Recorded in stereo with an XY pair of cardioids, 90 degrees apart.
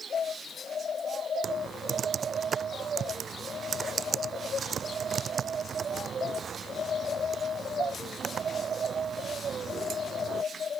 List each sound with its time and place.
1.4 s typing on a keyboard: 55° right